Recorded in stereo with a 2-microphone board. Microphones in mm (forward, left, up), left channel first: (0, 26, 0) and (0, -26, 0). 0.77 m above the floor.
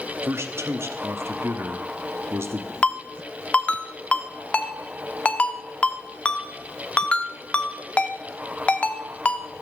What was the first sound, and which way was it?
A man speaking, 55° right (ahead or behind).